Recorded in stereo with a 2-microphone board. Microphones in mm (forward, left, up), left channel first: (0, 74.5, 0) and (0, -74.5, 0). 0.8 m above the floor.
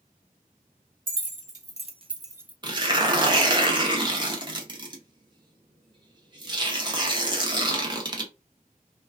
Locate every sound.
1.1 s keys jangling: 65° right (ahead or behind), 0.8 m; by 2.5 s 10° right (ahead or behind), 0.5 m
2.6 s tearing paper: 30° right (ahead or behind), 0.7 m